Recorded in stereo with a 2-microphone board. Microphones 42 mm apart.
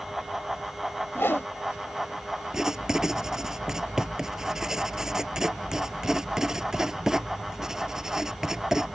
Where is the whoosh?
65° left (ahead or behind).